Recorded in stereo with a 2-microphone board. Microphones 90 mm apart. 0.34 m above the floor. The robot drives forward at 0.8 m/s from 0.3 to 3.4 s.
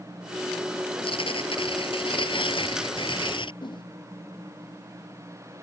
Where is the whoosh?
60° left (ahead or behind).